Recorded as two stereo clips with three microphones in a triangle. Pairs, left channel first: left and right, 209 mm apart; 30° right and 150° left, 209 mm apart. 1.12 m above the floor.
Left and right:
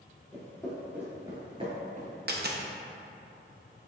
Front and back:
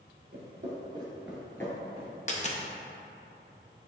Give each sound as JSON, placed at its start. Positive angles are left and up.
{"t": 0.3, "sound": "footsteps", "azimuth_deg": 170, "distance_m": 1.6}
{"t": 2.3, "sound": "a dropped coin", "azimuth_deg": -75, "distance_m": 0.5}